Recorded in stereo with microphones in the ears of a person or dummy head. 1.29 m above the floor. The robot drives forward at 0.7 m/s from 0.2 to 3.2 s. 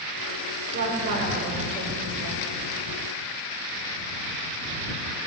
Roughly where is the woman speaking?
Right.